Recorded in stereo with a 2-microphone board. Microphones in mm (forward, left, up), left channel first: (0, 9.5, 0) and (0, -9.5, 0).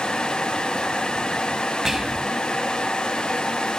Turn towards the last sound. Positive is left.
turn(degrees=-25)  # may be behind; listen again after turning